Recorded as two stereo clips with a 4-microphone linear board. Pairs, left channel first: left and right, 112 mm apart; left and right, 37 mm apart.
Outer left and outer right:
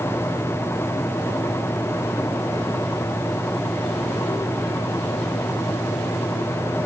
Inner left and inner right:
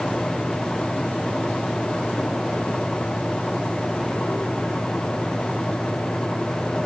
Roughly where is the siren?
I don't hear a siren.